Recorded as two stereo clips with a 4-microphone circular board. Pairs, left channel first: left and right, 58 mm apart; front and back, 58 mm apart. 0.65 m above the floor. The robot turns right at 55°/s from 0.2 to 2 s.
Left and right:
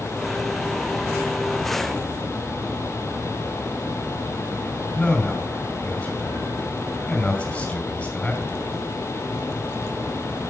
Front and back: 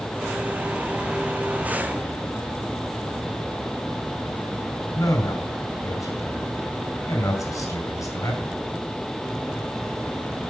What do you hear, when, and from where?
5.0 s a man speaking: 20° left, 4.5 m